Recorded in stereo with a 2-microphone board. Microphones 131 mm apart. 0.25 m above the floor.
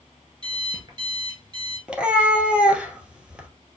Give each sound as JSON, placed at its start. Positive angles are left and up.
{"t": 0.4, "sound": "an alarm clock", "side_deg": -35, "distance_m": 1.9}
{"t": 1.9, "sound": "a cat meowing", "side_deg": -10, "distance_m": 0.9}